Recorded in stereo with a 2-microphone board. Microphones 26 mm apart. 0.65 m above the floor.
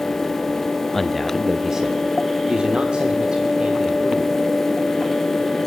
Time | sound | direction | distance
0.9 | a man speaking | 15° left (ahead or behind) | 0.6 m